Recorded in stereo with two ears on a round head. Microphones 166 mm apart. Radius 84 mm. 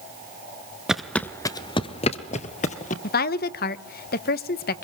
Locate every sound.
0.9 s footsteps: 5° right (ahead or behind), 1.0 m; by 2.9 s 40° left (ahead or behind), 2.0 m
3.0 s a woman speaking: 55° left (ahead or behind), 1.0 m